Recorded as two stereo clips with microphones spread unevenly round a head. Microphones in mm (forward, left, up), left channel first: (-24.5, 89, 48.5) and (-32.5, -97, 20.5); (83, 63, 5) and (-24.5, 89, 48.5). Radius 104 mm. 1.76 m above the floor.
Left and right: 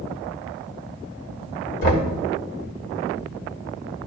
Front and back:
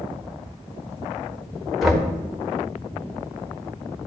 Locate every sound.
1.8 s knocking: 95° left, 1.7 m